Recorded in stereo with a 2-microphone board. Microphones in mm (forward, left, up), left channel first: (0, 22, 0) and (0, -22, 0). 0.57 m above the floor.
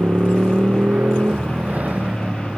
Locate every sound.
0.0 s a motorcycle: 50° right (ahead or behind); by 2.6 s 35° right (ahead or behind)